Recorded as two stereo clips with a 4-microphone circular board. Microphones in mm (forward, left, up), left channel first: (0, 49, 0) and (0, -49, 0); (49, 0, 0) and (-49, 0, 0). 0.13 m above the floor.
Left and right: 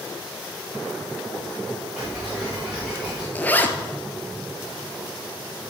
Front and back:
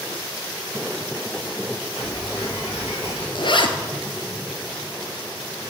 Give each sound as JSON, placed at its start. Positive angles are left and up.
{"t": 2.0, "sound": "ticking", "azimuth_deg": -15, "distance_m": 4.5}
{"t": 3.4, "sound": "a zipper", "azimuth_deg": 20, "distance_m": 0.9}